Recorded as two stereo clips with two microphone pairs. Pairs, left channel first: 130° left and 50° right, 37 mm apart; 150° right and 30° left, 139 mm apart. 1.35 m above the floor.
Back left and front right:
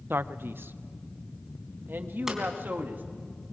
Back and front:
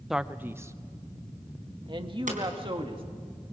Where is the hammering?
25° left, 3.5 m.